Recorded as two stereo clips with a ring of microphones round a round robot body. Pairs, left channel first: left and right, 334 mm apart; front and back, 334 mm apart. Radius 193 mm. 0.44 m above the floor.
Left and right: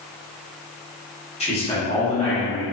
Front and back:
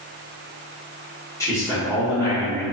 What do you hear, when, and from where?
1.4 s a man speaking: 60° left, 1.0 m